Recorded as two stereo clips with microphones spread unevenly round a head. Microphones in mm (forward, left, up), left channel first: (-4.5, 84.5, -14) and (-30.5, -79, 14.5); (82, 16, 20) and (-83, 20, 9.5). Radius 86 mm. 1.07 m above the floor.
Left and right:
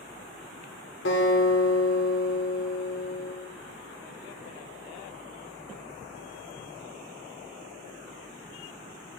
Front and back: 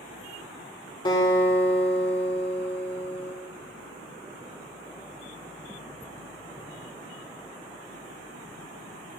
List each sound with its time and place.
1.1 s a guitar: 60° left, 3.5 m